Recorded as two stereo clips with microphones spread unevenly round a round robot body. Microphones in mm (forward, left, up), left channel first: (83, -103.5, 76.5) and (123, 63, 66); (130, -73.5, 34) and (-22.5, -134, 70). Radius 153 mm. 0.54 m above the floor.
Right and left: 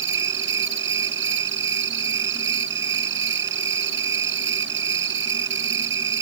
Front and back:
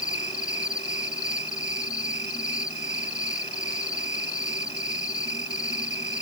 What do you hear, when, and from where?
0.0 s an insect: 95° left